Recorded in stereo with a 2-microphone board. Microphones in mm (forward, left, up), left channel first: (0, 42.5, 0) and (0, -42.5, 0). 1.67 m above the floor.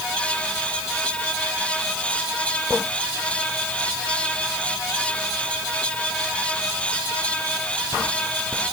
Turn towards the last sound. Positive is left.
No sound to turn to.